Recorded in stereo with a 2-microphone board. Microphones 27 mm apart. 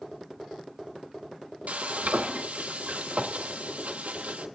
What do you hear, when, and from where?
1.7 s frying: 70° right (ahead or behind), 0.8 m